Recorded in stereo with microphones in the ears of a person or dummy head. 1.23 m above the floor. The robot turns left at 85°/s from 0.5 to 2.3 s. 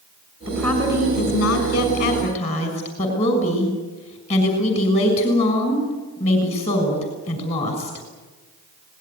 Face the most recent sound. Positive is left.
turn(degrees=35)